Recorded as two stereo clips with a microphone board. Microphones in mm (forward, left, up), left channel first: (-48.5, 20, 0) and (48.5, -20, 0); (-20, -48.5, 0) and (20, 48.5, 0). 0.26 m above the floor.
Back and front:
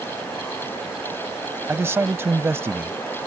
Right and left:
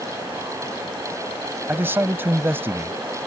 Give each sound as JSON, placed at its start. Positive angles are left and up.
{"t": 1.7, "sound": "a man speaking", "azimuth_deg": 20}